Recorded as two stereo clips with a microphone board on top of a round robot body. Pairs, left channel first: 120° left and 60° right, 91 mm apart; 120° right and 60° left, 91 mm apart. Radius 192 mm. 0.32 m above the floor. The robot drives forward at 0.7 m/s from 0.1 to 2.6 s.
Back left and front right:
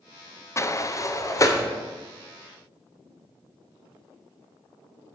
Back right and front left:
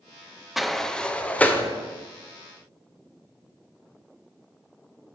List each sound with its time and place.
0.6 s a sliding door: 145° left, 0.7 m; by 1.6 s 170° left, 1.3 m